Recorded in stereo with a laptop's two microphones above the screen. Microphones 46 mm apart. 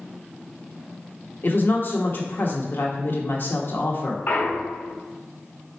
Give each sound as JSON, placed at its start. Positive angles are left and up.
{"t": 1.4, "sound": "a woman speaking", "side_deg": 45, "distance_m": 1.0}
{"t": 4.3, "sound": "a clunk", "side_deg": 40, "distance_m": 0.5}